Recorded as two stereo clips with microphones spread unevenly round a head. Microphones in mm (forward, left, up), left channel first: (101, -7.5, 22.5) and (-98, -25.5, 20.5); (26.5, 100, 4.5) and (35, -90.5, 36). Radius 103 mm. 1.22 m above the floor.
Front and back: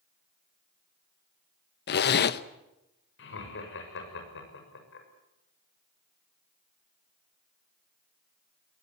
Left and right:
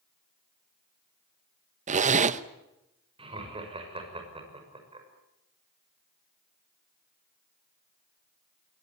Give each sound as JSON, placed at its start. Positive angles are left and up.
{"t": 1.9, "sound": "a zipper", "azimuth_deg": -35, "distance_m": 0.9}
{"t": 3.2, "sound": "laughter", "azimuth_deg": -25, "distance_m": 6.5}